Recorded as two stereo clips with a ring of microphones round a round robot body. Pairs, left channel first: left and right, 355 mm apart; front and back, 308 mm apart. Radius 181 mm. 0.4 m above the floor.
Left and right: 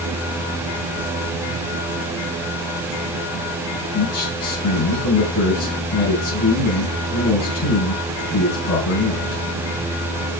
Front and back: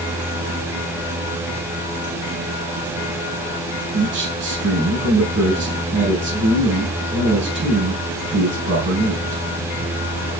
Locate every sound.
3.9 s a man speaking: 140° left, 4.5 m